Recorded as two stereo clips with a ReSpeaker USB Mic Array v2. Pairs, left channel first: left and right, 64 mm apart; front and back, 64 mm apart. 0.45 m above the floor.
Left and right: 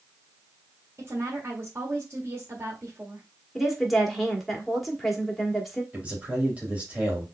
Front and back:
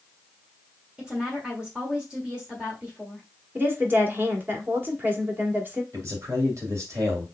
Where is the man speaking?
155° right, 2.5 m.